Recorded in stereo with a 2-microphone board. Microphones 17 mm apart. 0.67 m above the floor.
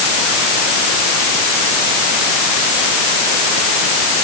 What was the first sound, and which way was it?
Only background noise.